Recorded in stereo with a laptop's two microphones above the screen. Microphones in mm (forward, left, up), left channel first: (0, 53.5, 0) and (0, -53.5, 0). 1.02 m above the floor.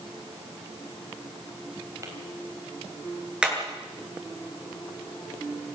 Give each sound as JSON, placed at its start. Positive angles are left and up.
{"t": 2.0, "sound": "tapping", "side_deg": -30, "distance_m": 4.0}
{"t": 3.4, "sound": "hammering", "side_deg": -10, "distance_m": 7.5}